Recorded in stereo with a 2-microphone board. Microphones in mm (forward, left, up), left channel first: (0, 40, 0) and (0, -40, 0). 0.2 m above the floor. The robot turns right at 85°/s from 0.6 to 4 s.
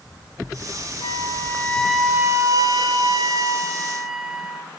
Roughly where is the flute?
Left.